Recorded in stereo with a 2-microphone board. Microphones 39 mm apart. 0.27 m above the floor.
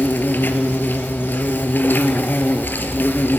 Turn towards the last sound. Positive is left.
turn(degrees=55)  # may be behind; listen again after turning